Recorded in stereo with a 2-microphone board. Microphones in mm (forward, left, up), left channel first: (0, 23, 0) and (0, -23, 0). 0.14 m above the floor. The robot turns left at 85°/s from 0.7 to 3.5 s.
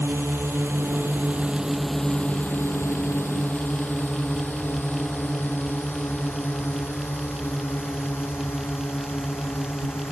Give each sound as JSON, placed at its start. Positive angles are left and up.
{"t": 0.0, "sound": "a drone", "side_deg": -70}